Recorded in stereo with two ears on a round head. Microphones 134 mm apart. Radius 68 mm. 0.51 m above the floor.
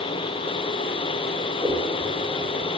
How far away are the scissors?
About 1.4 m.